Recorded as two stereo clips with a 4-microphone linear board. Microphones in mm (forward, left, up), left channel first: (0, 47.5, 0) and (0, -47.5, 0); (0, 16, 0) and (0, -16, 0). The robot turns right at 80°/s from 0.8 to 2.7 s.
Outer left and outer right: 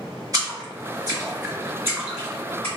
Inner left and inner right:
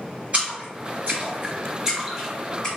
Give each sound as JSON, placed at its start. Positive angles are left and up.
{"t": 0.3, "sound": "a splash", "side_deg": -40, "distance_m": 1.9}